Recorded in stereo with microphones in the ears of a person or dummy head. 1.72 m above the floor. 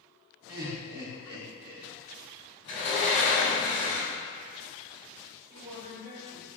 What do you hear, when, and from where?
0.5 s laughter: 20° right (ahead or behind), 1.1 m
2.6 s a sliding door: 40° left (ahead or behind), 1.0 m
5.5 s a woman speaking: 20° right (ahead or behind), 1.7 m